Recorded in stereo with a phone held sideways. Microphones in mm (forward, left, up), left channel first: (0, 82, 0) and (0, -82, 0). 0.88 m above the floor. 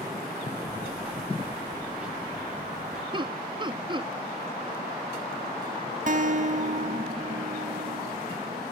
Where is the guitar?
50° right (ahead or behind), 1.0 m.